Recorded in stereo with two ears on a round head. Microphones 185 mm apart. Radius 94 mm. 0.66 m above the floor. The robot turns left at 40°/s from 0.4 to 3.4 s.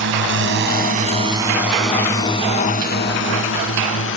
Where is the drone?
65° right (ahead or behind); by 4.2 s 75° left (ahead or behind).